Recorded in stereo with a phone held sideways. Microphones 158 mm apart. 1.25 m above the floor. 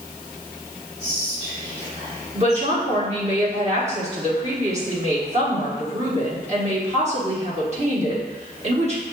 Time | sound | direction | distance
1.0 | whispering | 40° right (ahead or behind) | 1.2 m
2.4 | a woman speaking | 45° right (ahead or behind) | 1.4 m